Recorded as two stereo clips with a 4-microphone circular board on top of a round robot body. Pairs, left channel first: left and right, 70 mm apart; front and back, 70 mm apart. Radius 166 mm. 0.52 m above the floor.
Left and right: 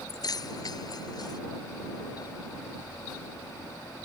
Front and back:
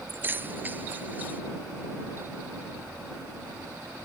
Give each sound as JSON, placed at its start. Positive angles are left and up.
{"t": 0.1, "sound": "keys jangling", "azimuth_deg": 120}